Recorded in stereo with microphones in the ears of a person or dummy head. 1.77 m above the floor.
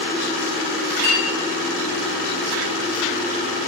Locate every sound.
1.0 s a clink: 30° right (ahead or behind), 3 m